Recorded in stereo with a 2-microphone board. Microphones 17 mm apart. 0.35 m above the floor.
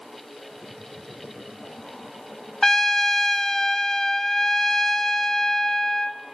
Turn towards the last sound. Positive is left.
turn(degrees=20)  # may be behind; listen again after turning